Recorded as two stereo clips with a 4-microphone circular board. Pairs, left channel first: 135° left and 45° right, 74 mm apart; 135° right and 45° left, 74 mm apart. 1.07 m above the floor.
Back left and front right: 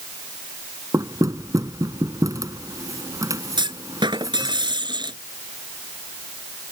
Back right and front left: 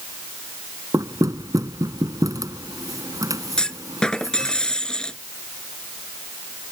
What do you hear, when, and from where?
0.9 s knocking: straight ahead
3.6 s a clunk: 55° right